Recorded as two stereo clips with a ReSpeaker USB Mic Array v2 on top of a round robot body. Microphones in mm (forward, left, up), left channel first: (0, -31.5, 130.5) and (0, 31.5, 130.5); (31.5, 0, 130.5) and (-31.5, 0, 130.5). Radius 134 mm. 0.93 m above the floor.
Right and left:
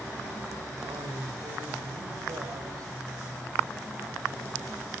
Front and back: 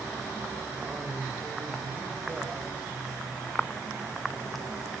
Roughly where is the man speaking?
Left.